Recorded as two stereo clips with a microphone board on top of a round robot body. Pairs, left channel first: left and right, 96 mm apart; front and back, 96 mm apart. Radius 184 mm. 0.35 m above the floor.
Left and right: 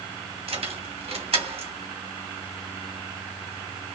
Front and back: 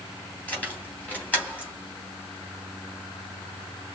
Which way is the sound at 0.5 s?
75° right.